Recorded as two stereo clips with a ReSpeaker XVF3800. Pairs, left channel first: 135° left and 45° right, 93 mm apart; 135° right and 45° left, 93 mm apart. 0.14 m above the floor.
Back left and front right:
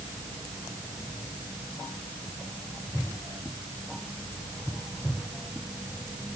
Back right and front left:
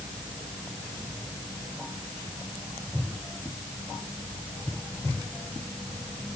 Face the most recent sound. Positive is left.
No sound to turn to.